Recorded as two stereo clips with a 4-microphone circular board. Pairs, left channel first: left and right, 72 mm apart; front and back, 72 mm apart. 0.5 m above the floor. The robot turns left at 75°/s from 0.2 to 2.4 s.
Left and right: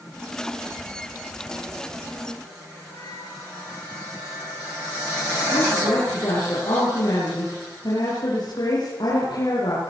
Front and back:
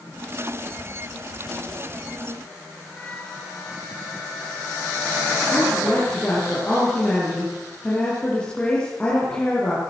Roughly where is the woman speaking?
Left.